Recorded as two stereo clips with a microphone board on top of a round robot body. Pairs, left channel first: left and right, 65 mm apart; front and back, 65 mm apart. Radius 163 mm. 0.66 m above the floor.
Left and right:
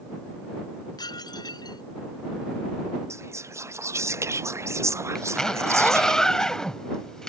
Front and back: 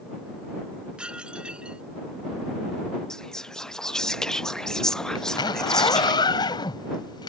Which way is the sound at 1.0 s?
105° left.